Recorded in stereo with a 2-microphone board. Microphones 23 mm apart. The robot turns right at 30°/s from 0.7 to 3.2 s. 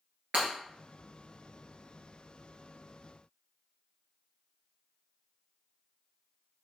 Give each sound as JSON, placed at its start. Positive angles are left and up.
{"t": 0.3, "sound": "breaking glass", "side_deg": -50, "distance_m": 2.0}